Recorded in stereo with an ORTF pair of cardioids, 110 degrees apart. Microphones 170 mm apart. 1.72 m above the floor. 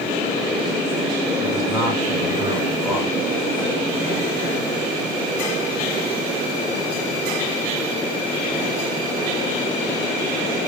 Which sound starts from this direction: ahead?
A man speaking, at 1.4 s.